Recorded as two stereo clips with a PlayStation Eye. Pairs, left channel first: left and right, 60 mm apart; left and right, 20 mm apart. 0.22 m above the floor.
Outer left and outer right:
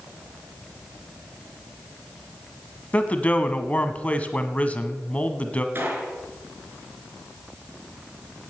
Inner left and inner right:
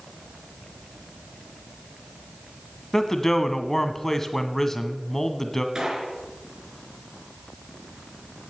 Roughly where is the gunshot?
Right.